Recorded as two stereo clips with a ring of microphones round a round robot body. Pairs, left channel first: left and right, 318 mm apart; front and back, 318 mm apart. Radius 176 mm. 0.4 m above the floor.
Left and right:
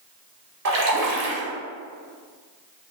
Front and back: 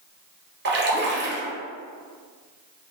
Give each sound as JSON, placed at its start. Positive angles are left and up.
{"t": 0.7, "sound": "a splash", "azimuth_deg": -125, "distance_m": 1.1}